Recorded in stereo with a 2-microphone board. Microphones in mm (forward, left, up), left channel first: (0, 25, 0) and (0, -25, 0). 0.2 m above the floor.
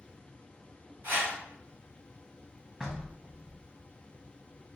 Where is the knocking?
15° right (ahead or behind), 0.7 m.